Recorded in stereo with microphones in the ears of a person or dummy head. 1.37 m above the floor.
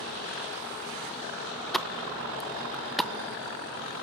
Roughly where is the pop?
Centre.